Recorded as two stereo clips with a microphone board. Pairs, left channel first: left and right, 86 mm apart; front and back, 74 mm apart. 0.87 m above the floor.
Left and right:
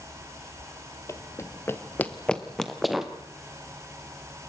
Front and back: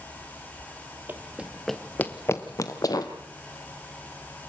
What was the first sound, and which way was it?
Running footsteps, 130° left.